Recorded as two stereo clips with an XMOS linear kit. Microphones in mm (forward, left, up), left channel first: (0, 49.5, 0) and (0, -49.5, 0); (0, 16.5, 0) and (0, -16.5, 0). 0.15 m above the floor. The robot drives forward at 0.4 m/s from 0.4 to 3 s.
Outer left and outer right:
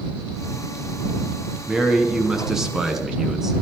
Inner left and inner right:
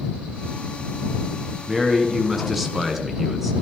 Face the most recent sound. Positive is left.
turn(degrees=-5)  # may be behind; listen again after turning